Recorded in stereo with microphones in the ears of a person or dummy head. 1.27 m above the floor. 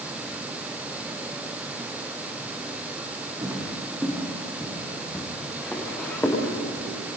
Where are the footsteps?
15° right (ahead or behind), 4.5 m; by 6.4 s 15° left (ahead or behind), 7.5 m.